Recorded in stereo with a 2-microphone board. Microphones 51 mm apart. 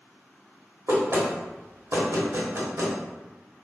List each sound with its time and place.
0.9 s knocking: 60° right (ahead or behind), 1.0 m